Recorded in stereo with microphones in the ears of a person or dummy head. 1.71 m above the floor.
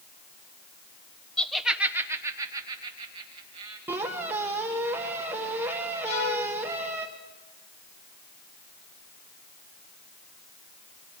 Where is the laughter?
5° left (ahead or behind), 1.1 m; by 3.8 s 35° right (ahead or behind), 2.5 m.